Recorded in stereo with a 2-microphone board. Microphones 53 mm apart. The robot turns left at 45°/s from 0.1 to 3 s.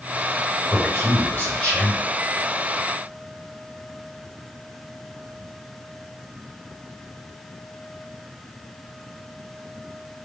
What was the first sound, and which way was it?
A man speaking, 65° left.